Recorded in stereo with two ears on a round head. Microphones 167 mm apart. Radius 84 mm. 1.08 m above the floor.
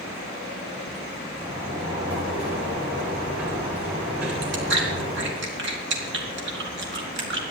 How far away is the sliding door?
About 6 m.